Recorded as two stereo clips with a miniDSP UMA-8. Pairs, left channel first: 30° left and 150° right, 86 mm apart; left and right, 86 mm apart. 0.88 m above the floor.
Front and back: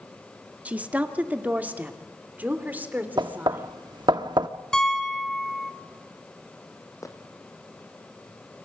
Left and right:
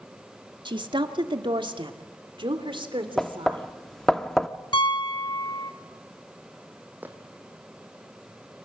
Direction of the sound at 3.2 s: 175° left.